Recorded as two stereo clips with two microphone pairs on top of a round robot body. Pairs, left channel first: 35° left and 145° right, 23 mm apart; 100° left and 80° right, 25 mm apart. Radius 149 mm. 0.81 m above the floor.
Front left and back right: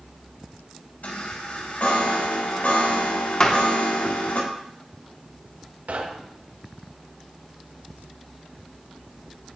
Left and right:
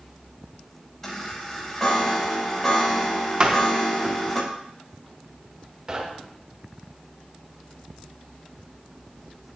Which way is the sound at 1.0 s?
25° left.